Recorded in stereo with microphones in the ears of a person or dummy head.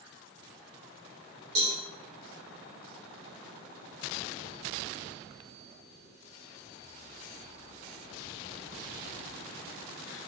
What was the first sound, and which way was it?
A cowbell, 70° right (ahead or behind).